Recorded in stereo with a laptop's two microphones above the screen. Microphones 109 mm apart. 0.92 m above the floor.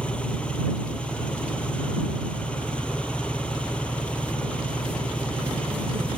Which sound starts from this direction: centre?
An engine running, at 0.0 s.